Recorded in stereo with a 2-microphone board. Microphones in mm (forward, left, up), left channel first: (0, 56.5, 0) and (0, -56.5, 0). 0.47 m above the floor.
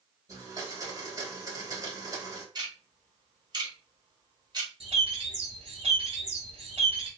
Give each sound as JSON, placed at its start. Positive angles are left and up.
{"t": 0.3, "sound": "a blender", "side_deg": -30, "distance_m": 1.3}
{"t": 2.5, "sound": "ticking", "side_deg": -40, "distance_m": 1.2}
{"t": 4.8, "sound": "a bird", "side_deg": -65, "distance_m": 1.3}